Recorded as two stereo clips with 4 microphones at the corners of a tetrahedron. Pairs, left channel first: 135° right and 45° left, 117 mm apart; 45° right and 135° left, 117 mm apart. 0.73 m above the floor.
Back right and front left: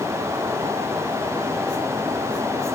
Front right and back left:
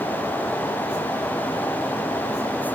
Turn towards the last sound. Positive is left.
No sound to turn to.